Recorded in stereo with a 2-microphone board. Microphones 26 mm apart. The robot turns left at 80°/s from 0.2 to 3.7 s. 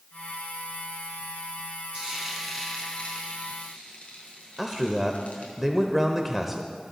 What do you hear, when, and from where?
1.9 s frying: 40° right (ahead or behind), 4.5 m; by 5.5 s 70° left (ahead or behind), 4.5 m
4.6 s a man speaking: 10° right (ahead or behind), 1.0 m